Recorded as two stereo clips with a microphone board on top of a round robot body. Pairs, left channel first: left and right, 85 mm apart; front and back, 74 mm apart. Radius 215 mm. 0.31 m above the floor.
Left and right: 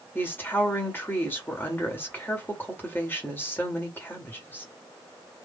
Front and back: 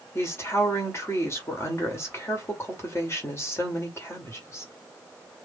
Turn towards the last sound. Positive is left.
turn(degrees=35)